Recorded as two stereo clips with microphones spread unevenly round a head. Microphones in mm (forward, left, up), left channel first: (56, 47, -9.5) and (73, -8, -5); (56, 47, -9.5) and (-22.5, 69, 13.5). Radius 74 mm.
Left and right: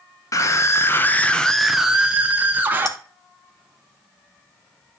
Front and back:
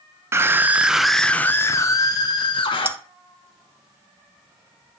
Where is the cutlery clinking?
105° left, 0.7 m.